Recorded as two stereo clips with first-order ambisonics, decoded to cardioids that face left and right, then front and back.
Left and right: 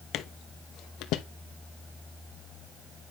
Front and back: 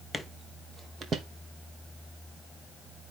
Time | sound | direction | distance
0.1 | footsteps | 85° left | 0.6 m